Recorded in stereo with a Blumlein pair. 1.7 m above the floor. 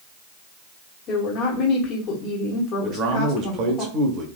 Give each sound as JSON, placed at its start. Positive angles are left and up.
{"t": 1.1, "sound": "a woman speaking", "azimuth_deg": 35, "distance_m": 1.1}
{"t": 2.8, "sound": "a man speaking", "azimuth_deg": -35, "distance_m": 1.0}